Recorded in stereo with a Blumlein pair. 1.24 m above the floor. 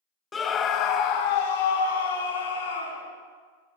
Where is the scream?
15° left, 0.6 m; by 3.1 s 70° left, 1.9 m.